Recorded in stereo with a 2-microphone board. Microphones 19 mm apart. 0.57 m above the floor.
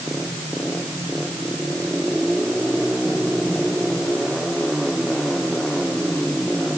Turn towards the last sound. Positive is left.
No sound to turn to.